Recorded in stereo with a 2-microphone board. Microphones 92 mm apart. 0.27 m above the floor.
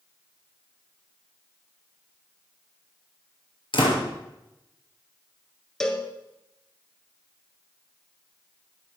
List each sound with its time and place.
3.7 s a door slam: 70° left (ahead or behind), 3.5 m
5.8 s a cowbell: 5° left (ahead or behind), 1.6 m